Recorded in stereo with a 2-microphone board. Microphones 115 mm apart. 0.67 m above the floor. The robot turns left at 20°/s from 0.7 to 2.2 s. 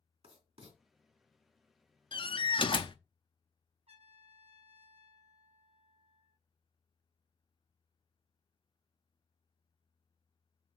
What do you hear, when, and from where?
0.2 s writing: 60° right (ahead or behind), 2.5 m
2.1 s a door slam: 45° left (ahead or behind), 0.6 m; by 3.0 s 50° left (ahead or behind), 0.6 m
3.9 s a trumpet: 60° right (ahead or behind), 5 m